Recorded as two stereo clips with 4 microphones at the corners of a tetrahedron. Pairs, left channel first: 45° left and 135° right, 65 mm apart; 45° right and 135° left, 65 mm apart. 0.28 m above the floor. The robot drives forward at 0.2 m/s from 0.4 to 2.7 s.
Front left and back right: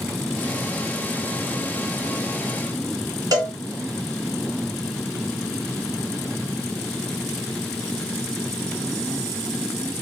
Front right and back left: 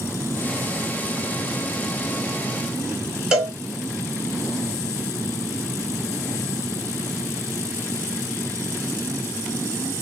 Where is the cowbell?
145° right, 1.3 m.